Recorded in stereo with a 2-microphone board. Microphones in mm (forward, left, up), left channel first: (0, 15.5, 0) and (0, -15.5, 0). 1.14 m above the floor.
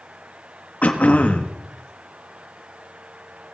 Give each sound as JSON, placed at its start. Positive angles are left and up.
{"t": 0.8, "sound": "throat clearing", "side_deg": 55, "distance_m": 1.2}